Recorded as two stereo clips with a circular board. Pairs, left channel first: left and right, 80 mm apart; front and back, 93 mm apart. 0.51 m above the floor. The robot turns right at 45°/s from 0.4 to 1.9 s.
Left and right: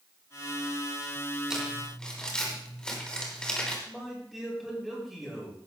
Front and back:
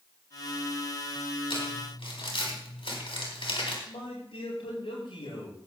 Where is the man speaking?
5° left, 8 m.